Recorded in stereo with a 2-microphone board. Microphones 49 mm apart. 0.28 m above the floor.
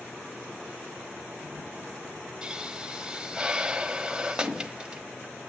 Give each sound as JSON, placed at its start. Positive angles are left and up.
{"t": 2.4, "sound": "a pop", "side_deg": -15, "distance_m": 0.9}